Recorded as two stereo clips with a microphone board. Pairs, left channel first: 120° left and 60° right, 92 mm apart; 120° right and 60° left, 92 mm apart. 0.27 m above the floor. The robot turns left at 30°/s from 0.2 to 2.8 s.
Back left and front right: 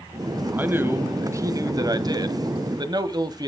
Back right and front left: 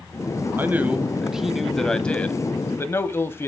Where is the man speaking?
5° left, 1.4 m; by 3.5 s 65° right, 1.4 m.